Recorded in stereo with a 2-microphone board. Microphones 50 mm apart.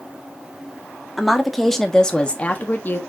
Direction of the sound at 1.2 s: 5° right (ahead or behind).